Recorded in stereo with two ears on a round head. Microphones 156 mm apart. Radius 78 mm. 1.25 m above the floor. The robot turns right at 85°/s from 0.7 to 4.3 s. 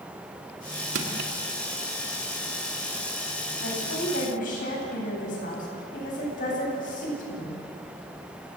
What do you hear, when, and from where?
0.9 s crushing: 85° right, 2.5 m; by 1.3 s 55° right (ahead or behind), 2.5 m
3.6 s a woman speaking: 70° left, 9.5 m; by 7.6 s 130° left, 9.5 m